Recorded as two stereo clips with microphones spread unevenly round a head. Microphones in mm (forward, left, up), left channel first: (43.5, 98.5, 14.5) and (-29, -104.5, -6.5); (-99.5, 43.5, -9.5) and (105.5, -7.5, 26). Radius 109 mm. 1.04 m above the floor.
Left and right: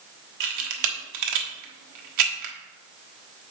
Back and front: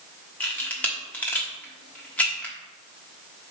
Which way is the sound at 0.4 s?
110° right.